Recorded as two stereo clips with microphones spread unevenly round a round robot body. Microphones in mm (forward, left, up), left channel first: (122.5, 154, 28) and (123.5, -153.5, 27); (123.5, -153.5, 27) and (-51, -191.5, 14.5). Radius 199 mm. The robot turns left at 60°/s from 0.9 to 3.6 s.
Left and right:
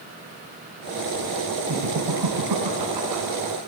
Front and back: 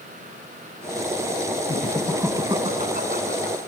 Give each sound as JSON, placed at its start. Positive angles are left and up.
{"t": 1.7, "sound": "laughter", "azimuth_deg": -55, "distance_m": 4.5}